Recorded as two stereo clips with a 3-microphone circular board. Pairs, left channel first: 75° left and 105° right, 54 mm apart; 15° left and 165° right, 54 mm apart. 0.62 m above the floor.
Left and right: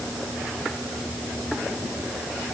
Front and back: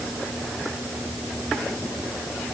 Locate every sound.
Only background noise.